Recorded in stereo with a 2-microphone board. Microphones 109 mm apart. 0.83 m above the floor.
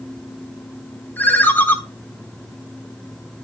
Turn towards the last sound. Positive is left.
turn(degrees=15)  # may be behind; listen again after turning